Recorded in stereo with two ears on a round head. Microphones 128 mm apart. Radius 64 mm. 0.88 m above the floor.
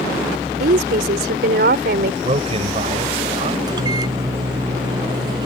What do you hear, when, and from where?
0.6 s a woman speaking: 75° right (ahead or behind)
2.2 s a man speaking: 45° right (ahead or behind)
3.7 s a microwave: 30° right (ahead or behind)